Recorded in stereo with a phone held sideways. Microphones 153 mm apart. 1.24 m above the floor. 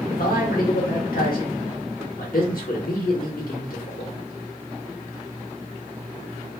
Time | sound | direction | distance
0.1 | a man speaking | 70° left (ahead or behind) | 1.1 m